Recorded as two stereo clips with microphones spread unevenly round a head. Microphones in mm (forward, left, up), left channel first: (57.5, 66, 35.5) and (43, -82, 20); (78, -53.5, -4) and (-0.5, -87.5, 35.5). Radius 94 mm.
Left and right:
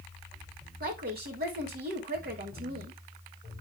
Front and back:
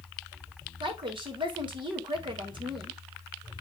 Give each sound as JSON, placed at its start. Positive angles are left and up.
{"t": 0.8, "sound": "a woman speaking", "azimuth_deg": -135, "distance_m": 2.5}